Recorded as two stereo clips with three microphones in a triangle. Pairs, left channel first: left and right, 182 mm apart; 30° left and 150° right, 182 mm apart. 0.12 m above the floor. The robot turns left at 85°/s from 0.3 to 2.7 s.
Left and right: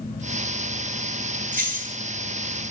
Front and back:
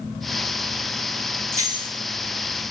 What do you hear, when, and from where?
1.5 s keys jangling: 75° right, 1.3 m; by 1.9 s 115° right, 1.3 m